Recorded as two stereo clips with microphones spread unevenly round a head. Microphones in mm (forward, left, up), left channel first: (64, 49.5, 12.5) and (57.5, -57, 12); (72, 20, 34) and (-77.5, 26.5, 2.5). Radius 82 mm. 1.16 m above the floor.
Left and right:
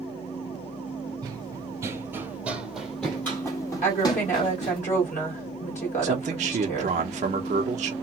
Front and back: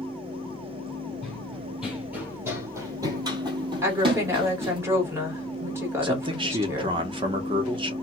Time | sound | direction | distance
1.2 | running footsteps | 70° right | 1.4 m
3.8 | a woman speaking | 110° left | 1.9 m
6.0 | a man speaking | 125° right | 0.8 m